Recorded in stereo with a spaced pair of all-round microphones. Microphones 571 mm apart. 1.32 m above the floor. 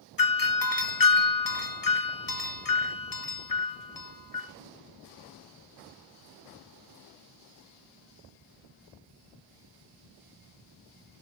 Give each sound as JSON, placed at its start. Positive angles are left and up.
{"t": 0.2, "sound": "a doorbell", "side_deg": 35, "distance_m": 0.8}